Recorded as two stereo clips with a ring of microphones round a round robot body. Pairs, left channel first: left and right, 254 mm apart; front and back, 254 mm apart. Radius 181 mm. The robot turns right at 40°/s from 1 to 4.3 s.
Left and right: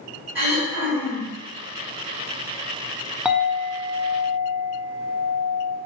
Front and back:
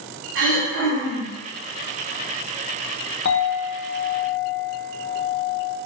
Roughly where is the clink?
Ahead.